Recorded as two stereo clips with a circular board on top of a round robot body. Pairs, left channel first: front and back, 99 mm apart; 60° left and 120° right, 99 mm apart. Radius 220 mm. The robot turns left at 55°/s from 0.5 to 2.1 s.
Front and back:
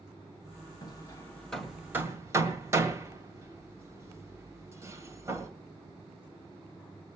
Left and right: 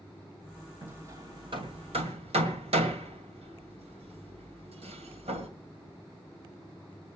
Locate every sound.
0.8 s hammering: 45° right, 2 m; by 5.5 s 115° right, 2 m